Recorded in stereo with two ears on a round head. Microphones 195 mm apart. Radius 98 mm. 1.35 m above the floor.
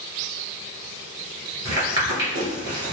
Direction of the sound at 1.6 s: 15° right (ahead or behind).